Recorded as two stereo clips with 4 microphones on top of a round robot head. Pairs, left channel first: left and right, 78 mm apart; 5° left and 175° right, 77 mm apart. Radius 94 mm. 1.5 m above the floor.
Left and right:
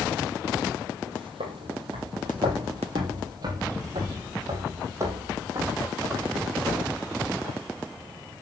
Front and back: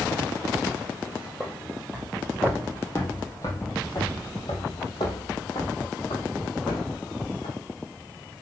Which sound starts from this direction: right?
Footsteps, at 1.1 s.